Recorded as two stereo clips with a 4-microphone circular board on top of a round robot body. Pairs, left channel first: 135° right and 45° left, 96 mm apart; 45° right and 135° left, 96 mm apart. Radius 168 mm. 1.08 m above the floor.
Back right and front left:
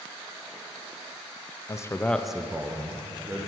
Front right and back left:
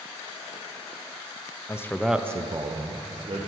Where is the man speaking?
90° right, 0.6 m; by 3.5 s 105° left, 1.1 m.